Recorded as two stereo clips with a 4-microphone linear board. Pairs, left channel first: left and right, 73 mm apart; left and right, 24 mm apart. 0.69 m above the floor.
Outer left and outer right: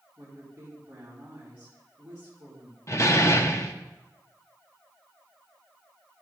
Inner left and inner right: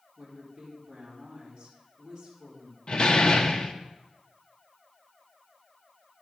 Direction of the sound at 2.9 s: 40° left (ahead or behind).